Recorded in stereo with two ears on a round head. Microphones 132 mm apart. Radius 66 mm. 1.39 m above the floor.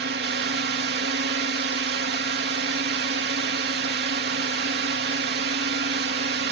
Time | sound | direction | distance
0.0 | a drone | 75° right (ahead or behind) | ?